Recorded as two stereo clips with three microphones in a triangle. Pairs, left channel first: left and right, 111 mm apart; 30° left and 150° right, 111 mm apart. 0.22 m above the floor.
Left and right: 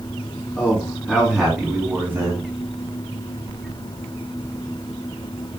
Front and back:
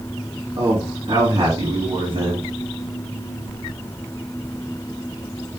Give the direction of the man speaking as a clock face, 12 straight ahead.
6 o'clock.